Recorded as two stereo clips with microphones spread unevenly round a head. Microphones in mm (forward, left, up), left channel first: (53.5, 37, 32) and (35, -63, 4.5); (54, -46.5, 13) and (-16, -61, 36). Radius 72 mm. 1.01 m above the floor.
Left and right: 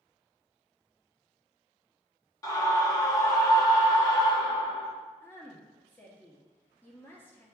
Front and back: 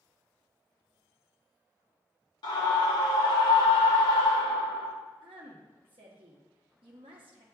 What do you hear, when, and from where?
2.4 s a scream: 20° left, 1.8 m
5.2 s a woman speaking: 160° left, 1.2 m